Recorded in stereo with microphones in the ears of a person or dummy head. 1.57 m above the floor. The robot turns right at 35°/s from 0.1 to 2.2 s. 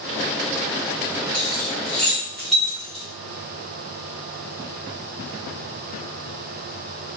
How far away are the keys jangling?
About 0.6 m.